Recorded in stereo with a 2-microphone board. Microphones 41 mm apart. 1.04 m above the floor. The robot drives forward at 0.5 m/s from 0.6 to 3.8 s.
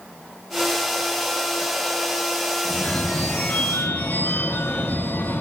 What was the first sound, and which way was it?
A phone ringing, 35° left (ahead or behind).